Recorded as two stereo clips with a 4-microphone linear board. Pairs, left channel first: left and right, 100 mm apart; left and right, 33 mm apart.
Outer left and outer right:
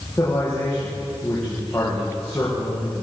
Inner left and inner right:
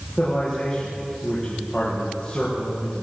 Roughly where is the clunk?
I don't hear a clunk.